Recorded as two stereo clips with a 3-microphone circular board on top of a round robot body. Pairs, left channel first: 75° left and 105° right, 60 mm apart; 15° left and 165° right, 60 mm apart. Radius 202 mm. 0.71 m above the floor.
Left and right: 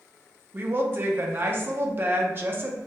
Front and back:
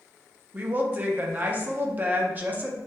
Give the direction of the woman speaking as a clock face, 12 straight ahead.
4 o'clock.